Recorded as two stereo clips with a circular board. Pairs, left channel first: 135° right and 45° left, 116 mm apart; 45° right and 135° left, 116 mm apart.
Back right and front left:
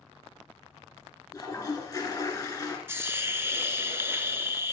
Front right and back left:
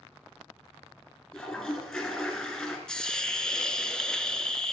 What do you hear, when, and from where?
1.3 s a toilet flushing: 130° right, 1.7 m
2.9 s a hiss: 30° left, 0.6 m